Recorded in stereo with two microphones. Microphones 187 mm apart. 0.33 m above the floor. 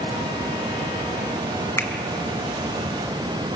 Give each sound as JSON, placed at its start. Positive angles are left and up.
{"t": 1.8, "sound": "a finger snap", "side_deg": 15, "distance_m": 2.0}